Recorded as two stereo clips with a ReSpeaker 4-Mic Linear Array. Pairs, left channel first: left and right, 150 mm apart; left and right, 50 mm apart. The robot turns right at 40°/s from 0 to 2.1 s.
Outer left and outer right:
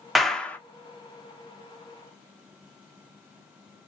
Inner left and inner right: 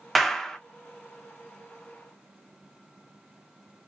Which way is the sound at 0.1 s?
Centre (ahead or behind).